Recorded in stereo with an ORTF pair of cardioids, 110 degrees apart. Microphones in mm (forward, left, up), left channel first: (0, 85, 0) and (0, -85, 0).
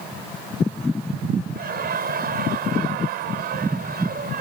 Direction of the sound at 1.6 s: 65° right.